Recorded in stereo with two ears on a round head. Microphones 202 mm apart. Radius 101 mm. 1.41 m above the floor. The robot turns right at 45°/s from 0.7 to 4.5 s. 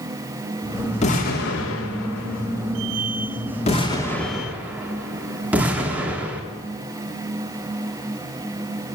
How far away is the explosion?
About 3.5 m.